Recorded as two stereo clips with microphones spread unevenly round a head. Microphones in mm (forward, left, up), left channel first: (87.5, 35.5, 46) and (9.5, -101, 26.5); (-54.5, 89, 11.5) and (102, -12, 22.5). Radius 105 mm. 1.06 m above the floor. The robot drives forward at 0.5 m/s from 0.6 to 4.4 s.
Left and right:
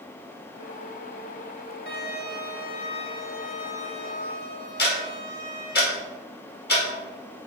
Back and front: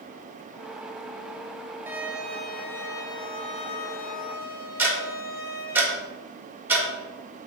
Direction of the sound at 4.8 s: 50° left.